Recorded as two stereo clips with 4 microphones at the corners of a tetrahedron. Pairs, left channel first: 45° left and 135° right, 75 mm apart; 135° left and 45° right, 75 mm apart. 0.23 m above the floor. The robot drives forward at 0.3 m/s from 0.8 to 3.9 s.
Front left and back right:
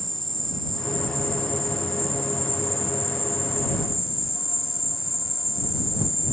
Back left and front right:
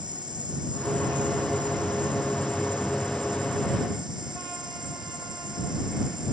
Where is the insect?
40° right; by 6.3 s 45° right.